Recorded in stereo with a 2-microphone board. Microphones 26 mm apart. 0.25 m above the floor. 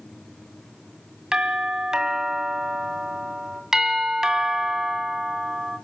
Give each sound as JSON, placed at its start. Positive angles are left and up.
{"t": 1.3, "sound": "a doorbell", "side_deg": -25, "distance_m": 1.8}
{"t": 3.7, "sound": "a doorbell", "side_deg": -15, "distance_m": 2.5}